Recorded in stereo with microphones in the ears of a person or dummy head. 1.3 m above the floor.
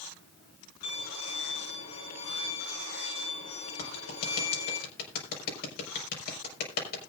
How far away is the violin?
About 6.5 m.